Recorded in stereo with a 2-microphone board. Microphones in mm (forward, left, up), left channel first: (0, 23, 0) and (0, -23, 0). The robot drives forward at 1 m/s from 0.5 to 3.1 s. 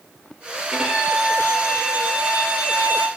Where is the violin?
15° right (ahead or behind), 5 m; by 3.1 s 30° right (ahead or behind), 3 m.